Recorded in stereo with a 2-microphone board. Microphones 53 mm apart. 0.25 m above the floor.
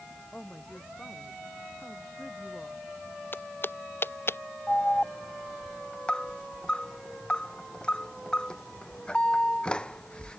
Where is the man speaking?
15° left (ahead or behind).